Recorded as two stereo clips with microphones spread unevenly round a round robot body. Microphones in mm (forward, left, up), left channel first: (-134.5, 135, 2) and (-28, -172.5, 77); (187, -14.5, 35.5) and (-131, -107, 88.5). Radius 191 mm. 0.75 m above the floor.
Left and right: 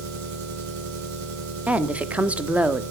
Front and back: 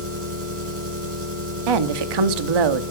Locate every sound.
0.0 s an engine running: 110° right, 6.5 m
1.7 s a woman speaking: 160° right, 1.4 m